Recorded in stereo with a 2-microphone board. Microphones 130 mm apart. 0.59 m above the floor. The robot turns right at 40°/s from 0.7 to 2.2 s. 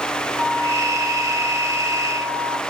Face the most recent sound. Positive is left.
turn(degrees=-90)